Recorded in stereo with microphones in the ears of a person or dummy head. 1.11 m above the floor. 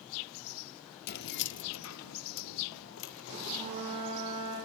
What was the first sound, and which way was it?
Keys jangling, 45° left (ahead or behind).